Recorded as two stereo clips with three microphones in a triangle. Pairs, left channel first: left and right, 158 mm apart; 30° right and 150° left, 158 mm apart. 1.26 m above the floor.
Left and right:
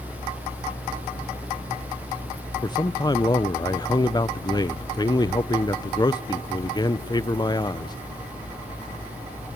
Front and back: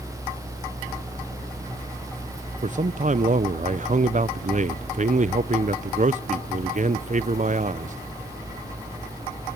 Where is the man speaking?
145° left, 0.6 m.